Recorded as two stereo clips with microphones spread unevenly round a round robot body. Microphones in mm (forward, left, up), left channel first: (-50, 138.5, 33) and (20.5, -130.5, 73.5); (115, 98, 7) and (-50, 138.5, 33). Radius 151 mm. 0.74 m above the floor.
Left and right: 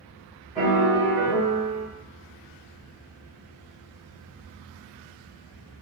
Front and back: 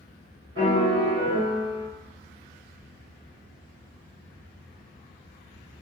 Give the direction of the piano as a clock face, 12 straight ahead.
5 o'clock.